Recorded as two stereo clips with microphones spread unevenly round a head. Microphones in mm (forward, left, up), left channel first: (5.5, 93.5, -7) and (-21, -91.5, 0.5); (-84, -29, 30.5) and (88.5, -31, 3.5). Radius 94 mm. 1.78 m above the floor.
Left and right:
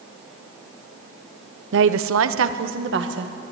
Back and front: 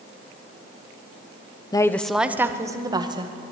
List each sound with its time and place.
1.7 s a woman speaking: 115° right, 0.9 m; by 3.3 s 65° right, 2.5 m